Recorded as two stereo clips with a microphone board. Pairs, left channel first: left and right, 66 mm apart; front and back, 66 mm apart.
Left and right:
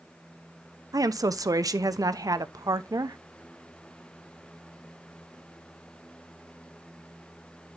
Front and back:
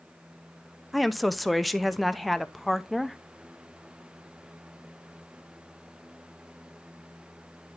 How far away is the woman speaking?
About 0.7 m.